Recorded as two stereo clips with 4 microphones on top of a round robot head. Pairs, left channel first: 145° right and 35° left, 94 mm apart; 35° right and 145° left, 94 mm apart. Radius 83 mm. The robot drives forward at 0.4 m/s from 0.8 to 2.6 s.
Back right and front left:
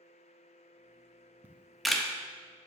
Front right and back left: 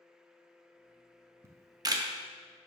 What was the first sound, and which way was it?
A camera shutter, 100° left.